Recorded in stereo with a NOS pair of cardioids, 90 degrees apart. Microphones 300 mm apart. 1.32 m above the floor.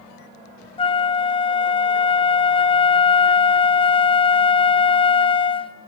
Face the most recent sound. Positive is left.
turn(degrees=20)